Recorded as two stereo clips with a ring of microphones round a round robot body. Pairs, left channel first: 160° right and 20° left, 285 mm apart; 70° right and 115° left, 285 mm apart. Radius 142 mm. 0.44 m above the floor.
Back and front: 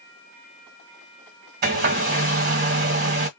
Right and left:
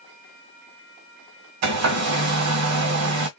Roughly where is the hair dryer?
Left.